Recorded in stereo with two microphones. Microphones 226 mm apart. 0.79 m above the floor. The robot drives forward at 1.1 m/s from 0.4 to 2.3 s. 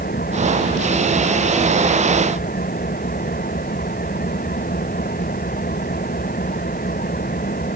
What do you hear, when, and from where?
0.0 s an engine running: 45° left (ahead or behind); by 7.8 s 40° left (ahead or behind)